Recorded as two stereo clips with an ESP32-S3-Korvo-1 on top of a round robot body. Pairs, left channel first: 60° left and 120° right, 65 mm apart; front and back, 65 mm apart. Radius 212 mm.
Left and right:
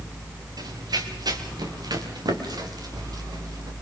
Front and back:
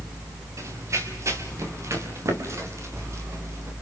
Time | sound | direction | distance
0.6 | running footsteps | 140° right | 4.5 m